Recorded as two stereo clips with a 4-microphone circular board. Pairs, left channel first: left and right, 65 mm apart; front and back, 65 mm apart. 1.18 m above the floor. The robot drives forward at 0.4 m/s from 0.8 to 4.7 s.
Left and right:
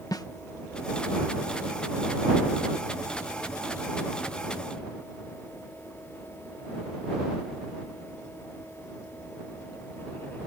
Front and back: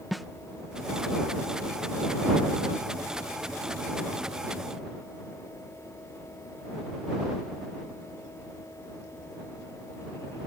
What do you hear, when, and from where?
0.1 s a snare drum: 95° left